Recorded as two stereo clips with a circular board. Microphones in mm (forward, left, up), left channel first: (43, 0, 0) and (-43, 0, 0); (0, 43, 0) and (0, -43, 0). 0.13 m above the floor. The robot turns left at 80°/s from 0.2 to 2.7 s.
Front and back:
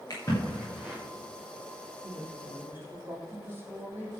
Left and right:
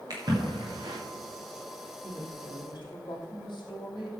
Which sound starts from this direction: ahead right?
A splash, at 0.1 s.